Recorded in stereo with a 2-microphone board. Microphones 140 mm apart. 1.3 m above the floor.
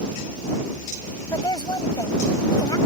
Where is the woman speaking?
30° left (ahead or behind).